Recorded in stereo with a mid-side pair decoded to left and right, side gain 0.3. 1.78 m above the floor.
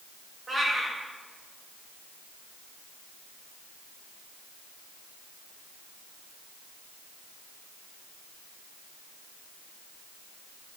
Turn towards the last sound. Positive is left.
turn(degrees=-45)